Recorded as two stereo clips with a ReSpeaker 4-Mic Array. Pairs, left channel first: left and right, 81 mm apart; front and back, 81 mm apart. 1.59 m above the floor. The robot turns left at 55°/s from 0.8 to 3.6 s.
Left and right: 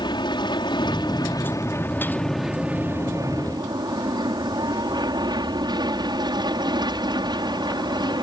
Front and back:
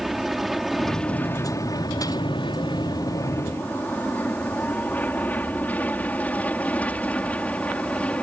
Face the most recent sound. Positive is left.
turn(degrees=-75)